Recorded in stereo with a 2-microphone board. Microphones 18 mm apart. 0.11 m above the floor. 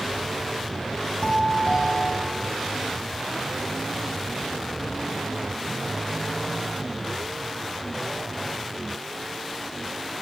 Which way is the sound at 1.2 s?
50° left (ahead or behind).